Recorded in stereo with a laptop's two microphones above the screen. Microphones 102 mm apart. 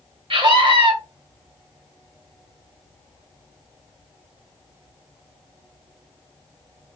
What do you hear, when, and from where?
0.3 s a scream: 60° right (ahead or behind), 1.8 m